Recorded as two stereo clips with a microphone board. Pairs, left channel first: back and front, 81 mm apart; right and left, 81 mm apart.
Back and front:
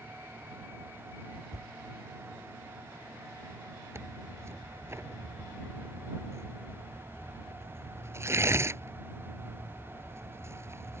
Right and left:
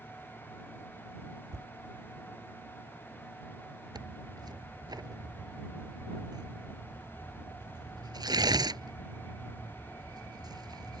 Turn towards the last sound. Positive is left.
turn(degrees=55)